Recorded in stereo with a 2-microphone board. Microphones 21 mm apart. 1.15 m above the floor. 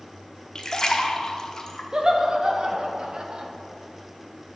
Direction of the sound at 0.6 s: 35° left (ahead or behind).